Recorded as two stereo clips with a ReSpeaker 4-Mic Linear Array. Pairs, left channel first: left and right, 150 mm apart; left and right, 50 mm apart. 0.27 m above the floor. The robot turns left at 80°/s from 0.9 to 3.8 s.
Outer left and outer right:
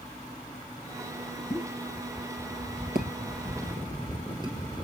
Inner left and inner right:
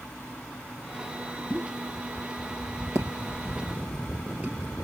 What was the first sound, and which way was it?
A pop, 35° left (ahead or behind).